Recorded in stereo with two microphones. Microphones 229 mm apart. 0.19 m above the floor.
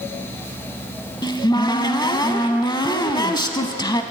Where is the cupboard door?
20° left (ahead or behind), 0.5 m.